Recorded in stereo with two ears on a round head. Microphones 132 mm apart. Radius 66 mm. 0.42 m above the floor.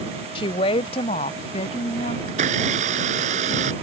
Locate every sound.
0.3 s a woman speaking: 35° left (ahead or behind); by 2.2 s 40° left (ahead or behind)
2.3 s a blender: 50° right (ahead or behind)